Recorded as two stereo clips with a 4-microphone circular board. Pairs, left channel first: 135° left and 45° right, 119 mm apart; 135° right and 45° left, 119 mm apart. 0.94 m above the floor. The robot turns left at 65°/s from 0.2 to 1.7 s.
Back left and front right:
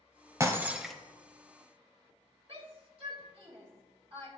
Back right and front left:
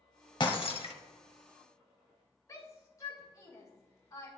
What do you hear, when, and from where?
0.4 s breaking glass: 100° right, 1.0 m; by 0.9 s 140° right, 1.0 m
2.5 s a shout: 75° right, 2.5 m